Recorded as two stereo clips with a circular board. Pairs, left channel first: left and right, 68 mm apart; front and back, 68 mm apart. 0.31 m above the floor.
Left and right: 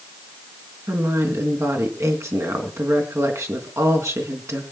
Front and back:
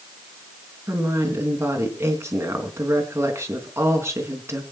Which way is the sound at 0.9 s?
135° right.